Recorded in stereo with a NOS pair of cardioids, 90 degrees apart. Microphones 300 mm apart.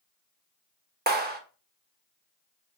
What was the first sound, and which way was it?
A clap, 30° right.